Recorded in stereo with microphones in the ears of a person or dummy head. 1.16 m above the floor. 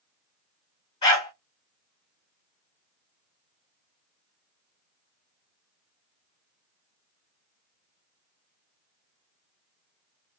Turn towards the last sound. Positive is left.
turn(degrees=30)  # may be behind; listen again after turning